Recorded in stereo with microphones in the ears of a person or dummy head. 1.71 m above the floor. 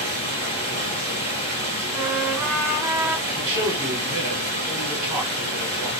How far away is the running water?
About 2 m.